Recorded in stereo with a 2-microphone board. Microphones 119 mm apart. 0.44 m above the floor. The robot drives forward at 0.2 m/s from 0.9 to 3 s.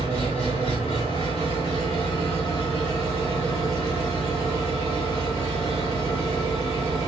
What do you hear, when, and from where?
0.0 s an engine running: 50° left (ahead or behind), 1.6 m; by 7.1 s 45° left (ahead or behind), 1.9 m